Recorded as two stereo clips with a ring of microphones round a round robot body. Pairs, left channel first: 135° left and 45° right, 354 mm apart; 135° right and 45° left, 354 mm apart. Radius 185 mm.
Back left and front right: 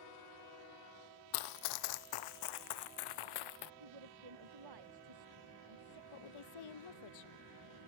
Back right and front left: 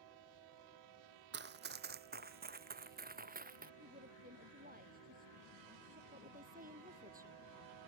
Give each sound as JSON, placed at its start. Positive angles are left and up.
{"t": 1.3, "sound": "running footsteps", "azimuth_deg": 105}
{"t": 3.8, "sound": "a woman speaking", "azimuth_deg": -20}
{"t": 6.1, "sound": "a woman speaking", "azimuth_deg": 115}